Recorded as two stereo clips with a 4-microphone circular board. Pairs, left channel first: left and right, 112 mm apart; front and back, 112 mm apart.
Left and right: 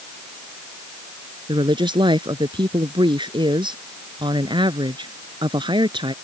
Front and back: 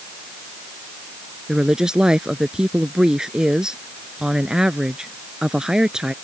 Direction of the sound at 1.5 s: 100° right.